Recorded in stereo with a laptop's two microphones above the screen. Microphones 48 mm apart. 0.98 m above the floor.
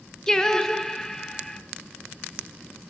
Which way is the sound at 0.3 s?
15° left (ahead or behind).